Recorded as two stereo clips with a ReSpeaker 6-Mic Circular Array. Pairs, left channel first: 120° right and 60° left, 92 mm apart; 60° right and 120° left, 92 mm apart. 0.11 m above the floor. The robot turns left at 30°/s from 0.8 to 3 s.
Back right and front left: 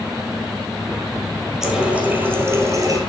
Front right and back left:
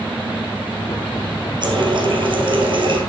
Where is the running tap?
145° left, 2 m; by 3.0 s 100° left, 2 m.